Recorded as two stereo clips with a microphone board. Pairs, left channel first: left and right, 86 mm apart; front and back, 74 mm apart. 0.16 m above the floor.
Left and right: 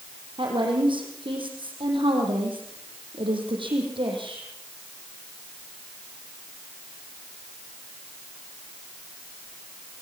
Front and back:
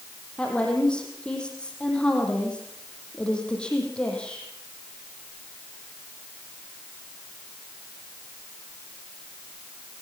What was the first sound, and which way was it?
A woman speaking, 75° right.